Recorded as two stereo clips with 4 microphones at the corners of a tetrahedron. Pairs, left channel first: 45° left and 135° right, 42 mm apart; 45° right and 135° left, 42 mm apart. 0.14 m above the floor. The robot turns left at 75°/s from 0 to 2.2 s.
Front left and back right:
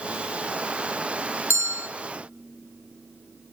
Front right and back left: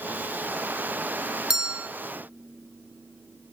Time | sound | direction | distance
1.5 | a bell | 145° right | 1.0 m